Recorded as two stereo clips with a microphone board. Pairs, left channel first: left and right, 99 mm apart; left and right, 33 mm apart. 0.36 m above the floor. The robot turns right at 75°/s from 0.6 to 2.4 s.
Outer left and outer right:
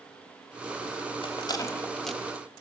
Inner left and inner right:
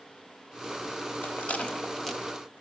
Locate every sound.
1.2 s a rattle: 60° left (ahead or behind), 1.2 m; by 2.5 s 20° right (ahead or behind), 1.2 m